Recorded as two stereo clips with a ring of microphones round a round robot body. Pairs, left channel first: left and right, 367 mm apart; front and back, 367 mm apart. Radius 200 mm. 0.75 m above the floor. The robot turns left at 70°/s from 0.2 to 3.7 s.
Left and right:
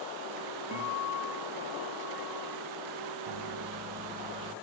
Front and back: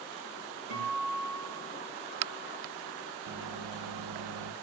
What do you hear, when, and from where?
0.7 s a guitar: 170° right, 3 m; by 2.6 s 60° left, 3 m
3.2 s a microwave: 125° right, 0.6 m; by 4.5 s 155° right, 0.6 m